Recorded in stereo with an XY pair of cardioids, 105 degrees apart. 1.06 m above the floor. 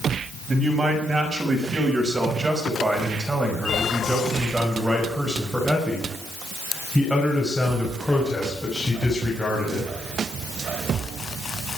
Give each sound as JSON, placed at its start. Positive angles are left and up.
{"t": 0.5, "sound": "a man speaking", "azimuth_deg": -35, "distance_m": 6.0}